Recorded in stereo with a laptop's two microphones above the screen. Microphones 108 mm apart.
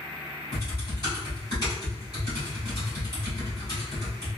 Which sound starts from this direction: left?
Typing on a keyboard, at 0.5 s.